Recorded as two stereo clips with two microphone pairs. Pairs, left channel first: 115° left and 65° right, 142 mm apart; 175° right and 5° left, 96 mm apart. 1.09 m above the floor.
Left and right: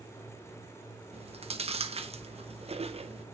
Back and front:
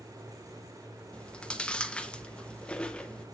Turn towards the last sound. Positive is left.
turn(degrees=-100)